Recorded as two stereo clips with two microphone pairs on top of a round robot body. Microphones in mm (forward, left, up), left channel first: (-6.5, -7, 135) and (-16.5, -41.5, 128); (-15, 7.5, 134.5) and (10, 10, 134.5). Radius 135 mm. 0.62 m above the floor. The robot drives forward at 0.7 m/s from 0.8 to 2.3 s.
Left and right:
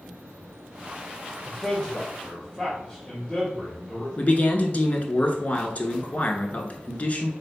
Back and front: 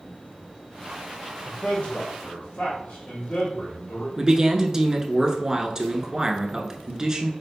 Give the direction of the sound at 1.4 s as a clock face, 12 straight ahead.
6 o'clock.